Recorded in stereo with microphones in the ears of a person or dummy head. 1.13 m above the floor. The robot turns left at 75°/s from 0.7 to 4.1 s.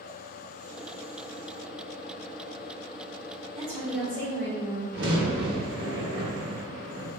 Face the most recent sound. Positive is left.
turn(degrees=-70)  # may be behind; listen again after turning